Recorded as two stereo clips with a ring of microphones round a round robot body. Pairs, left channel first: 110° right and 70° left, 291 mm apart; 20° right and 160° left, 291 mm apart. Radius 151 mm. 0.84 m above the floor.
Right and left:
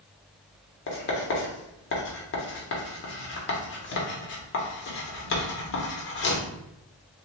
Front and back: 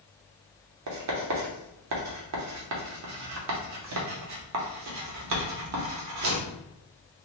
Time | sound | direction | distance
0.9 | writing | 165° right | 0.7 m